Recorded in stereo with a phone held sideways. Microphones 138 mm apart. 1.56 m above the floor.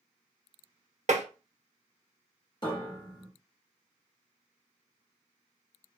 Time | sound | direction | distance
1.1 | tapping | 55° right (ahead or behind) | 0.7 m
2.6 | a piano | 35° left (ahead or behind) | 1.0 m